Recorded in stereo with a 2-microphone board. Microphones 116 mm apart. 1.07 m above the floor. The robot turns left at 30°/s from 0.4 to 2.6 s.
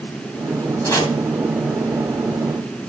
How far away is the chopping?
About 2.5 m.